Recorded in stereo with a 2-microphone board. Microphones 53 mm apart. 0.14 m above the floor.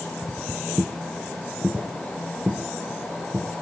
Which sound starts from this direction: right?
Footsteps, at 0.2 s.